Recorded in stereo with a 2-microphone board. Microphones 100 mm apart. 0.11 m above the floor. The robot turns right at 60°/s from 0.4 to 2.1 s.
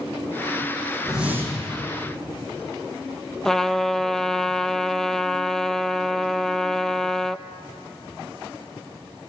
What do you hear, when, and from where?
1.0 s a whoosh: straight behind, 5 m; by 1.7 s 140° right, 5 m
3.5 s a trumpet: 5° left (ahead or behind), 0.5 m